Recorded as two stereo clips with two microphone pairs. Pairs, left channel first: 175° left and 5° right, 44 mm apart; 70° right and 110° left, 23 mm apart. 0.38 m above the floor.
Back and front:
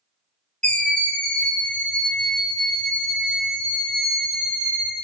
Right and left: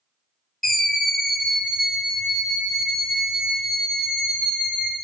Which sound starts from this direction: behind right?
A scream, at 0.6 s.